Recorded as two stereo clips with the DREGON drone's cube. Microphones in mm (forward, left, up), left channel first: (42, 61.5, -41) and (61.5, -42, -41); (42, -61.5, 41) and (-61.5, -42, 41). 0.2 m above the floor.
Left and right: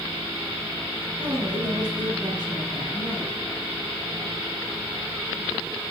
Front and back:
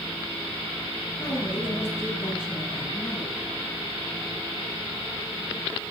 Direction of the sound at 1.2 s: 40° right.